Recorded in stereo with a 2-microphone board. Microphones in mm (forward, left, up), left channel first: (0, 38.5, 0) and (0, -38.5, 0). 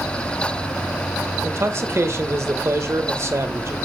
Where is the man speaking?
40° right (ahead or behind), 1.2 m.